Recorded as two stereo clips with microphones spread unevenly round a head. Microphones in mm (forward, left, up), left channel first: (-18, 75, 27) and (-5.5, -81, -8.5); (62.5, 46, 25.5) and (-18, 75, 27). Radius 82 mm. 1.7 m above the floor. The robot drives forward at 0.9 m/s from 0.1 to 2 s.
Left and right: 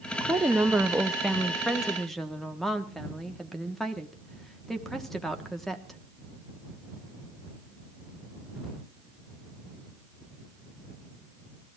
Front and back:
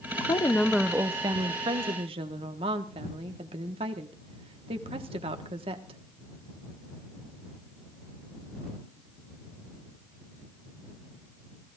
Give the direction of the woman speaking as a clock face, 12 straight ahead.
12 o'clock.